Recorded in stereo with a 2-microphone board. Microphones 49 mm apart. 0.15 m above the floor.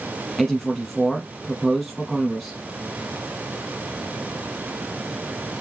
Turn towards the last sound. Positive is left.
turn(degrees=5)  # may be behind; listen again after turning